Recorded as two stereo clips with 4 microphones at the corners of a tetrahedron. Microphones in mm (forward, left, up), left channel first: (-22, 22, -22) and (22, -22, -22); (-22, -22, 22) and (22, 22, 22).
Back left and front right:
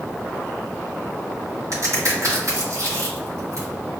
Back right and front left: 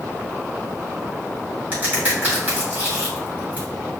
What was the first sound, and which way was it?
A crack, 15° right.